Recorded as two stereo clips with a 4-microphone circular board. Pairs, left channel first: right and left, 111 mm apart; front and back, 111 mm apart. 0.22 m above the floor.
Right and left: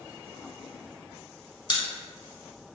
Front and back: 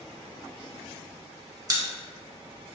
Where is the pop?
130° right, 0.6 m.